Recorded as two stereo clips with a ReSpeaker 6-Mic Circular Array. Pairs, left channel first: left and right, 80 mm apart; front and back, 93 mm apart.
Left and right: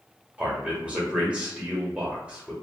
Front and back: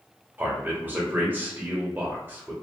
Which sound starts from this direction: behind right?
A man speaking, at 0.4 s.